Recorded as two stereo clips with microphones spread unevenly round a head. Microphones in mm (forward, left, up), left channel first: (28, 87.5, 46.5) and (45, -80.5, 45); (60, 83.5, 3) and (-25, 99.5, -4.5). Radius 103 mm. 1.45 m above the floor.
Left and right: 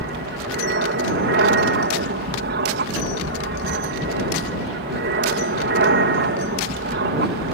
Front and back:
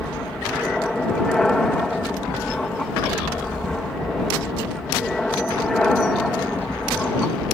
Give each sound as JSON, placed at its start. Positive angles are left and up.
{"t": 0.0, "sound": "an aircraft", "azimuth_deg": -100}